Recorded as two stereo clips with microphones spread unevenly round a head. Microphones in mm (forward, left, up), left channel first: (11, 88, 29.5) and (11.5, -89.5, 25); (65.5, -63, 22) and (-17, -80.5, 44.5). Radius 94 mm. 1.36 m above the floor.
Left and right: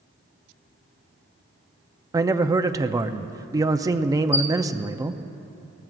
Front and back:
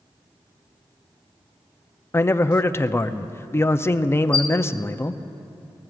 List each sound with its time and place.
2.1 s a man speaking: 25° right, 0.6 m
4.3 s a squeak: 50° left, 1.0 m